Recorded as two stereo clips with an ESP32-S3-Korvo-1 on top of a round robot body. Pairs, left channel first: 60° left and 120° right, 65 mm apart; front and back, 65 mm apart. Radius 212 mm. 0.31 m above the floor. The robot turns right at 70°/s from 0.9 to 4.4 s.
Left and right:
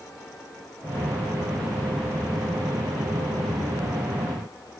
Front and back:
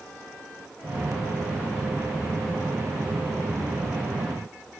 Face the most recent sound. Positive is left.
No sound to turn to.